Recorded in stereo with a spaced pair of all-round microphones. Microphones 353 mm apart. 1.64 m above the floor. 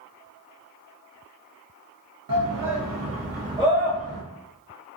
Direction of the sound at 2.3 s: 65° right (ahead or behind).